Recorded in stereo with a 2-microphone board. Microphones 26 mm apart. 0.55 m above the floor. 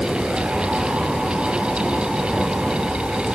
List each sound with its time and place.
Only background noise.